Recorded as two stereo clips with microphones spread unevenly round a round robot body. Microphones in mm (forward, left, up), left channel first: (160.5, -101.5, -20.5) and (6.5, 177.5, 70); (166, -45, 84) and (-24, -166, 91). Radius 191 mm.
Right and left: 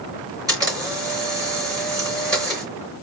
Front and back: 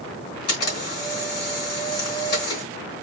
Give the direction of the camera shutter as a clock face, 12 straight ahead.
11 o'clock.